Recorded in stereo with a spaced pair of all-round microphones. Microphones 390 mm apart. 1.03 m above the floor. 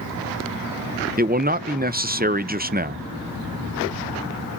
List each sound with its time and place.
1.2 s a man speaking: 25° right (ahead or behind), 0.6 m